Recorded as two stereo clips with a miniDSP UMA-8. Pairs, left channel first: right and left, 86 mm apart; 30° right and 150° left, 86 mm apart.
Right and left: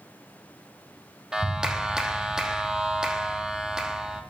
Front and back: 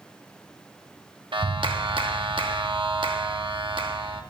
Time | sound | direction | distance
1.3 | a clap | 170° left | 1.2 m